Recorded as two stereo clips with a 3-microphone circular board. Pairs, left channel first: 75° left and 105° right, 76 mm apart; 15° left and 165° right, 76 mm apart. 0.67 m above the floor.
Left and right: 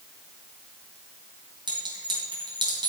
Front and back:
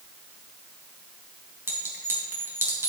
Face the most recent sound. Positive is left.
turn(degrees=-105)